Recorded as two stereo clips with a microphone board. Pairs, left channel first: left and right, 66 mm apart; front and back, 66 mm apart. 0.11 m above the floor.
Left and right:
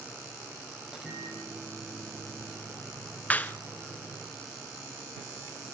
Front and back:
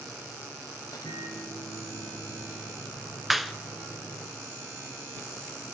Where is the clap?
95° left, 1.1 m.